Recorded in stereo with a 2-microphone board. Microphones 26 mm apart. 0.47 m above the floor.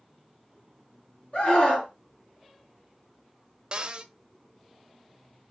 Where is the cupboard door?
35° right (ahead or behind), 0.8 m.